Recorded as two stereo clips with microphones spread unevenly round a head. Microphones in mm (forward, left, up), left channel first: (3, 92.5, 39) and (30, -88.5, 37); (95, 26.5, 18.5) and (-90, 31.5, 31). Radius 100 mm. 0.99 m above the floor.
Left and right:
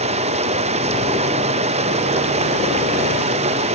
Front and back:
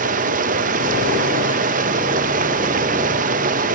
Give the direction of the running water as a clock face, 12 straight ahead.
4 o'clock.